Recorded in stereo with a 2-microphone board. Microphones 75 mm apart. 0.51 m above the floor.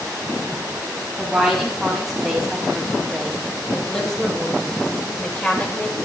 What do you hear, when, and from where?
1.2 s a woman speaking: centre (ahead or behind), 4.5 m; by 6.0 s 25° left (ahead or behind), 2 m